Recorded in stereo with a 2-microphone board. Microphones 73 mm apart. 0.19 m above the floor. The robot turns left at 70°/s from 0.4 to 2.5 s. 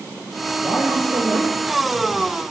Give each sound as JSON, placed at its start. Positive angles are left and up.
{"t": 0.6, "sound": "a man speaking", "azimuth_deg": 0, "distance_m": 4.5}